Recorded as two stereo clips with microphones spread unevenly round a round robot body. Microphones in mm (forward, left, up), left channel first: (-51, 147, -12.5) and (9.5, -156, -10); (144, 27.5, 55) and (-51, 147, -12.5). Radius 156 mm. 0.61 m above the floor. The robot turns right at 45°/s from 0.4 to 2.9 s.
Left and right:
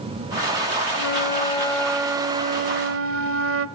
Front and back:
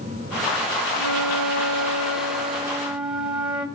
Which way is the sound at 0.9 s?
145° left.